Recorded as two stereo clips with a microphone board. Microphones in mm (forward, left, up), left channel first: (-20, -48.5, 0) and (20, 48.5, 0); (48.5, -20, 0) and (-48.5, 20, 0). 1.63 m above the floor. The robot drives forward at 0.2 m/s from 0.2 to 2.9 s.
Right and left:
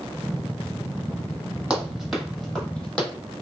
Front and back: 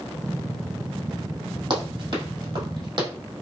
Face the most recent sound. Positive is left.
turn(degrees=175)